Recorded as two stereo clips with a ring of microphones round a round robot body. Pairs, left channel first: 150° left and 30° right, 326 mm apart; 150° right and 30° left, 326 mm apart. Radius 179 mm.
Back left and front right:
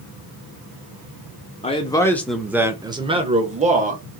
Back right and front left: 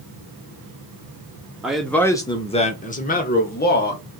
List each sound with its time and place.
1.6 s a man speaking: 115° left, 1.0 m; by 4.0 s 95° right, 1.7 m